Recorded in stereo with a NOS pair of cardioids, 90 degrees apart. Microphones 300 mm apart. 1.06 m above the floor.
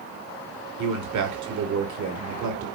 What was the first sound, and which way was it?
A man speaking, 65° right.